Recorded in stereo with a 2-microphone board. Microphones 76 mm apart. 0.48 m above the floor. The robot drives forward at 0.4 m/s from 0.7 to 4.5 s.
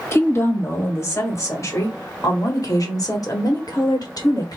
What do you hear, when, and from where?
0.1 s a woman speaking: 35° left (ahead or behind), 2 m; by 4.6 s 55° left (ahead or behind), 1.5 m